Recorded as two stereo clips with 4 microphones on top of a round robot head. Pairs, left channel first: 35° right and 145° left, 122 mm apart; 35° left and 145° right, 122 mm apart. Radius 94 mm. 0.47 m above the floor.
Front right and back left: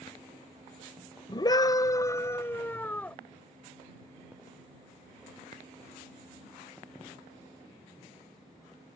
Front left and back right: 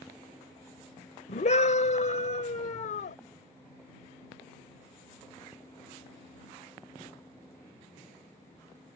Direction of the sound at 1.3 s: 15° left.